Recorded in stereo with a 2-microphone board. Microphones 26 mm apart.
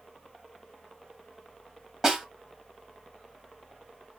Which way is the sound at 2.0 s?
25° right (ahead or behind).